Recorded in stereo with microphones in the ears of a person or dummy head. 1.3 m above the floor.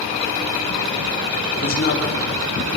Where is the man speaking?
45° left (ahead or behind), 4 m.